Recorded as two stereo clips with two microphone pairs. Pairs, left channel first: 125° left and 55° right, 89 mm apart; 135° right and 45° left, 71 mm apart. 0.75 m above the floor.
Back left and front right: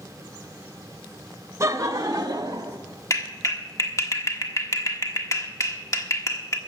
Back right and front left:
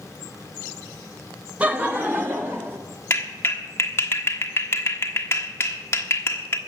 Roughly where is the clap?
Behind.